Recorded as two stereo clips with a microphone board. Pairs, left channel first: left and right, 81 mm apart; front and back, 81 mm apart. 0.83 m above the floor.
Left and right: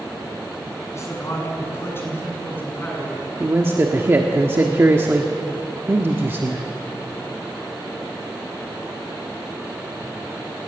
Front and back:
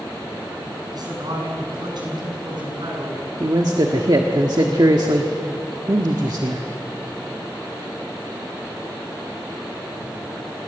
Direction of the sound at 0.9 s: 145° left.